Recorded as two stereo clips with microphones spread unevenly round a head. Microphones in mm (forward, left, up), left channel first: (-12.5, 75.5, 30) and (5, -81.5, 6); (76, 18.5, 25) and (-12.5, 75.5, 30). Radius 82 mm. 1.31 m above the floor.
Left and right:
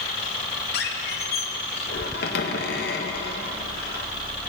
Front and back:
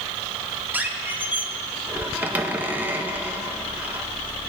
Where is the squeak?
75° left, 0.8 m.